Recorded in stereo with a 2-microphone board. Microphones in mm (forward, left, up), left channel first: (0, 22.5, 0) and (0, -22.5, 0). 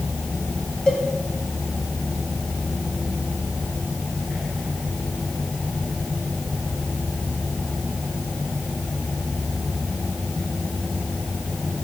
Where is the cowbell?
15° left (ahead or behind), 1.2 m.